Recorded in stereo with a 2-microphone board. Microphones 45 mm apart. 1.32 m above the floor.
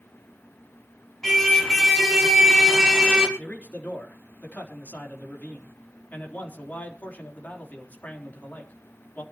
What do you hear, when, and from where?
1.2 s a car horn: 10° left (ahead or behind), 5.5 m; by 3.3 s 20° right (ahead or behind), 5 m
3.4 s a man speaking: 40° left (ahead or behind), 4 m